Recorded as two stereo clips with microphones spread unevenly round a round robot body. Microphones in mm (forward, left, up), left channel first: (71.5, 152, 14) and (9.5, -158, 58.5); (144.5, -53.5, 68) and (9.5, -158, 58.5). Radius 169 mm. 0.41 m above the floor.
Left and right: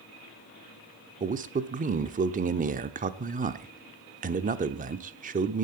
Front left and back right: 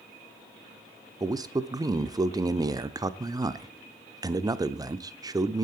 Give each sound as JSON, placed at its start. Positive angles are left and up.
{"t": 1.2, "sound": "a man speaking", "azimuth_deg": -150, "distance_m": 0.8}